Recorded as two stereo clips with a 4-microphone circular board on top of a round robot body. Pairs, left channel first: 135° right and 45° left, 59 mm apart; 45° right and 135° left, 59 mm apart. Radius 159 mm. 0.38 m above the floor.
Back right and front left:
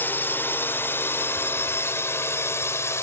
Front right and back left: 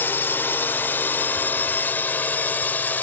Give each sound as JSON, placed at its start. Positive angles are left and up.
{"t": 0.0, "sound": "a drone", "azimuth_deg": -90}